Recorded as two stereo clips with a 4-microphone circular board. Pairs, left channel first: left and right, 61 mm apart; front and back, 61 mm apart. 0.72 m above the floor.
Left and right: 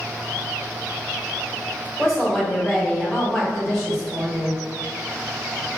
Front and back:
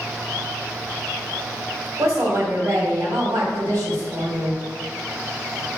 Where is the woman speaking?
170° left, 1.7 m.